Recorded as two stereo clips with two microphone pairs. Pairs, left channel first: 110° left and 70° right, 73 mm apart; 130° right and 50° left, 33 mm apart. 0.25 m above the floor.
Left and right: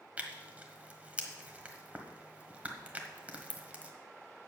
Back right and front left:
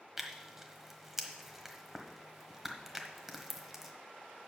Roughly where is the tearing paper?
Ahead right.